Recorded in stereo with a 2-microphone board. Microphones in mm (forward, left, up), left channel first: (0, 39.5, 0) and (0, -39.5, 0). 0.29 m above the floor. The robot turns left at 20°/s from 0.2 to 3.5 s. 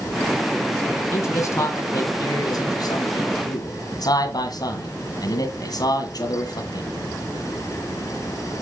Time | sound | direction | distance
1.1 | a man speaking | 135° left | 1.8 m